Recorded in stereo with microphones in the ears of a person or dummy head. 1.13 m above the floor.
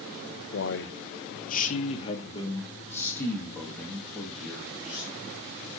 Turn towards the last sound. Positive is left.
turn(degrees=0)  # may be behind; listen again after turning